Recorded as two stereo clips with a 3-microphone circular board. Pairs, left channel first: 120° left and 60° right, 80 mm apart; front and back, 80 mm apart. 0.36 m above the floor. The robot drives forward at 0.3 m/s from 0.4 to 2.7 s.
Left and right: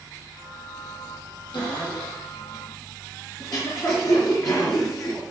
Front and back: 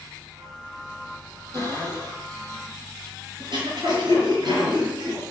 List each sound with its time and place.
1.5 s a cupboard door: 140° left, 6 m
3.4 s throat clearing: 160° left, 5 m